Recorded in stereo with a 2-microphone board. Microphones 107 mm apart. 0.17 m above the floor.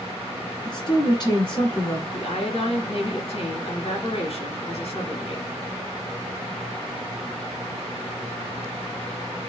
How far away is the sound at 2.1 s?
About 1.9 m.